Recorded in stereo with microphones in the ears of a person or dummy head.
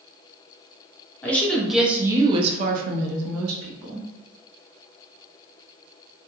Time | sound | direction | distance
1.2 | a woman speaking | 10° left (ahead or behind) | 0.9 m